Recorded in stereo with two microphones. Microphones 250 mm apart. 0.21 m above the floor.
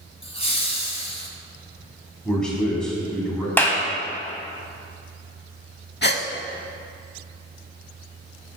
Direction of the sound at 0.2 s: 25° left (ahead or behind).